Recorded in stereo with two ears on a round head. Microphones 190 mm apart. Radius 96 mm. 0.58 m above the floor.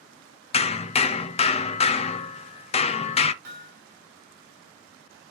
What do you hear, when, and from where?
0.5 s hammering: 30° left (ahead or behind), 0.6 m
3.4 s hammering: 50° right (ahead or behind), 3.5 m